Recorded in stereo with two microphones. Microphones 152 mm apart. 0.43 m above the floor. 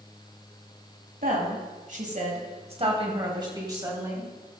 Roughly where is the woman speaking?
Right.